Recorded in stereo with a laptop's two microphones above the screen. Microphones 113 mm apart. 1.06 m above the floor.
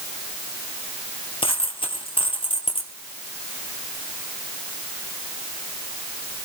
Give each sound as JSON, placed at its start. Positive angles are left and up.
{"t": 1.4, "sound": "a dropped coin", "side_deg": 55, "distance_m": 2.5}